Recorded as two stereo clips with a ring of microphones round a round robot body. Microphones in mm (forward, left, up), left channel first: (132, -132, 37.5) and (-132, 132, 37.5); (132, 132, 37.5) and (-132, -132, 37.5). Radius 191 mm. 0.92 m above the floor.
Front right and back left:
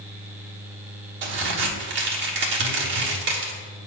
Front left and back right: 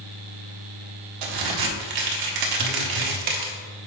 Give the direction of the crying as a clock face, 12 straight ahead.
I don't hear crying.